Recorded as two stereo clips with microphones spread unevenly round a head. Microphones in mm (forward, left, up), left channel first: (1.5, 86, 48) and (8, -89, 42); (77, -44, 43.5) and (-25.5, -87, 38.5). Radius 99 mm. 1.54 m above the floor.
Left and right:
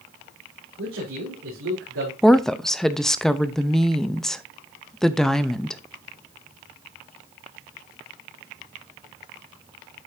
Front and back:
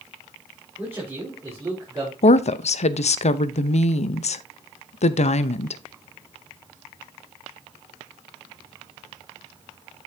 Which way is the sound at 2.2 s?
5° left.